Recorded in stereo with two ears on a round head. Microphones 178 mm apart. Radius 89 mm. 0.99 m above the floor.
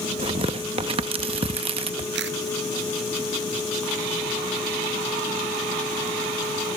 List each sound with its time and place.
0.2 s tearing paper: 30° right (ahead or behind)
2.1 s a camera shutter: 65° right (ahead or behind)